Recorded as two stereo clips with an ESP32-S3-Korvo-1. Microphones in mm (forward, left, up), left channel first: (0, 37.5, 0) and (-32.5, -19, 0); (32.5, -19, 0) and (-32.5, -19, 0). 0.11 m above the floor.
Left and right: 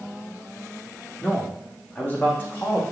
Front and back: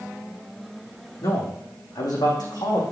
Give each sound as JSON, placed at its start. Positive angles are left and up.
{"t": 1.2, "sound": "a man speaking", "azimuth_deg": -10, "distance_m": 4.5}